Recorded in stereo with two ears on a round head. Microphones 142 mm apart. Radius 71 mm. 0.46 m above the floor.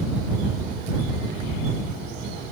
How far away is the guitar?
No guitar in this recording.